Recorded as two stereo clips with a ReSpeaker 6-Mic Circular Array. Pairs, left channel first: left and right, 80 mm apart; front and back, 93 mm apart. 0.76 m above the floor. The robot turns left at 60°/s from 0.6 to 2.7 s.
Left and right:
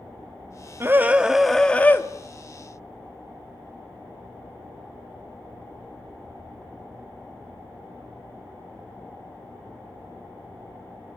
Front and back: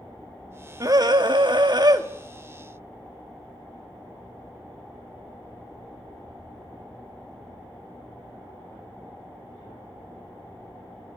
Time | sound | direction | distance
0.8 | a scream | 140° right | 1.7 m